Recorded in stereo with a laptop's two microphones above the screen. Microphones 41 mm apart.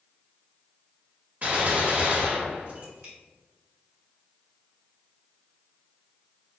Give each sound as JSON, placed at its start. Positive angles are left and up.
{"t": 1.4, "sound": "a gunshot", "side_deg": -45, "distance_m": 1.4}